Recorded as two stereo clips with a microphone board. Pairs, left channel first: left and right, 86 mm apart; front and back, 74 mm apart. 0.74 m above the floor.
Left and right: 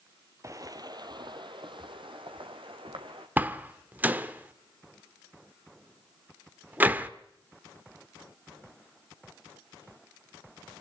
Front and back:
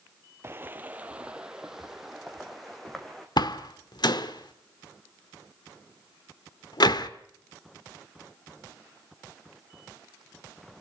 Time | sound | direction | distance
0.4 | footsteps | 135° right | 1.1 m
3.4 | a door slam | 20° right | 1.1 m